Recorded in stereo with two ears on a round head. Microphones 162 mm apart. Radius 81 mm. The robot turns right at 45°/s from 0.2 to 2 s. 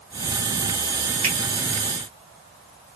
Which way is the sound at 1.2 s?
55° right (ahead or behind).